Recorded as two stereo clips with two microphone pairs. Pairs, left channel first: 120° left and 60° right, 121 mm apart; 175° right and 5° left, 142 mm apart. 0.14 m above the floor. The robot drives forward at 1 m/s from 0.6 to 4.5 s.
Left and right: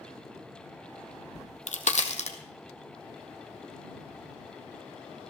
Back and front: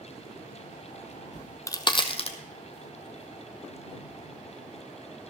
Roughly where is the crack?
Left.